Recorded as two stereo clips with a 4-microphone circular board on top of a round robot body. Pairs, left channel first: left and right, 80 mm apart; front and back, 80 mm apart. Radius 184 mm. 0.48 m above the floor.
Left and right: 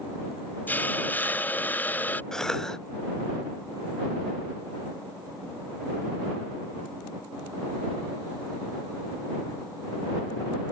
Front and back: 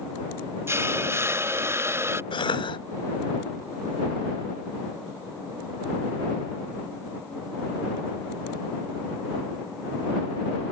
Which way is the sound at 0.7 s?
145° left.